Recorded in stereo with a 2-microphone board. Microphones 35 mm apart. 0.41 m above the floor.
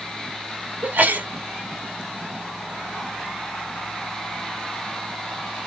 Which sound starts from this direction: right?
A sneeze, at 0.8 s.